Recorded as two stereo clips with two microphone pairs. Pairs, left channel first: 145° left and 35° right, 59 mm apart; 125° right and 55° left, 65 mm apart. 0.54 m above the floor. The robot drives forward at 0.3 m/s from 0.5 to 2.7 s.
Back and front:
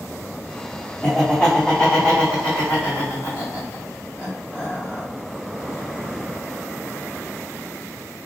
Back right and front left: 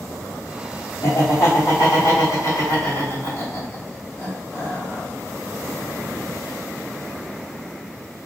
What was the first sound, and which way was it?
Laughter, 135° right.